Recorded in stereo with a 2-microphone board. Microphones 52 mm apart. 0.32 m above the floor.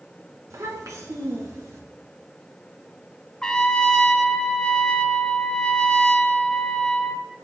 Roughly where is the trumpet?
Centre.